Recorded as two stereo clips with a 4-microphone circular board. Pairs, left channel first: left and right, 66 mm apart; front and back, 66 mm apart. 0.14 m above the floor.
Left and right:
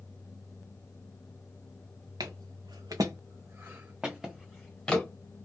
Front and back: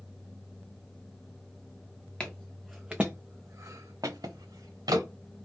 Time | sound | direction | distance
2.2 | footsteps | 80° right | 0.8 m